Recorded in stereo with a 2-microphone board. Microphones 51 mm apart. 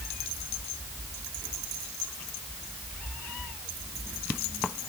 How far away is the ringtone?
I don't hear a ringtone.